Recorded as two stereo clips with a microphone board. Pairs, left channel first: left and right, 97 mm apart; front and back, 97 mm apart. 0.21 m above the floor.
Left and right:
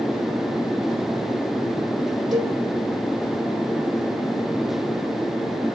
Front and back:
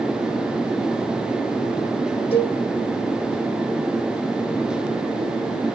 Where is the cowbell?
Straight ahead, 4 m.